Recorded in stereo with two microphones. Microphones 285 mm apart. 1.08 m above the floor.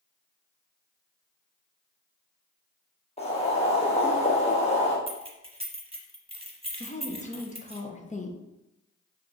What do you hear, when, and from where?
3.2 s boiling: 20° left (ahead or behind), 1.1 m
5.1 s keys jangling: 20° right (ahead or behind), 0.7 m
6.8 s a woman speaking: 25° left (ahead or behind), 0.6 m